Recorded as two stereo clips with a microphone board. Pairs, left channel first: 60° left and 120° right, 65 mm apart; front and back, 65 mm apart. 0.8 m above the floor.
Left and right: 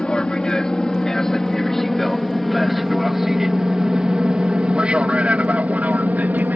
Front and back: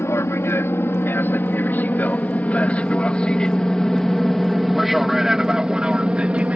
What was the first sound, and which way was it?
An aircraft, 10° right.